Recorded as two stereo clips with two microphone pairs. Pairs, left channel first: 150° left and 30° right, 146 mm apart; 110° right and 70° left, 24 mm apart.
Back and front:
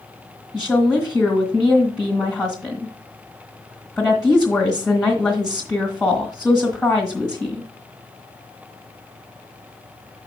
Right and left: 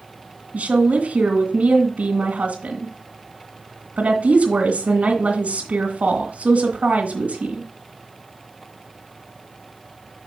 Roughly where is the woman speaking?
Ahead left.